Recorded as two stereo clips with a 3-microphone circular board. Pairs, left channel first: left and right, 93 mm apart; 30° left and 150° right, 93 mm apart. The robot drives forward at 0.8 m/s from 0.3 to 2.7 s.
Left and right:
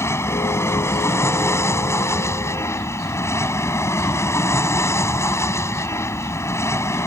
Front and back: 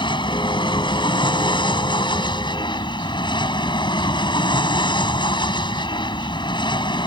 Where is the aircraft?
35° left.